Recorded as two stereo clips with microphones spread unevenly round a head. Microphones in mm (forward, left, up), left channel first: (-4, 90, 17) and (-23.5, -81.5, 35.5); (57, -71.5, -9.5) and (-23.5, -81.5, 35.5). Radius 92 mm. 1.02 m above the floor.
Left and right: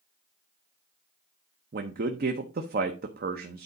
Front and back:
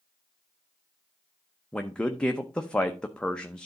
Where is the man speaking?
60° right, 0.8 m.